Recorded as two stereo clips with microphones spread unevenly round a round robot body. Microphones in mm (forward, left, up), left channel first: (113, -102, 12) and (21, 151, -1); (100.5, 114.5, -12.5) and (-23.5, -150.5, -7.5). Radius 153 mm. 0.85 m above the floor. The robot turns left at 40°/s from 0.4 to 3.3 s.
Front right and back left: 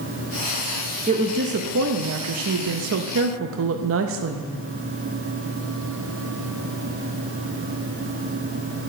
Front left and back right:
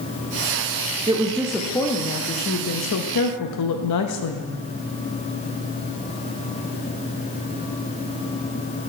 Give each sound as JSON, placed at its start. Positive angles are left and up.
{"t": 1.1, "sound": "a woman speaking", "azimuth_deg": 175, "distance_m": 0.6}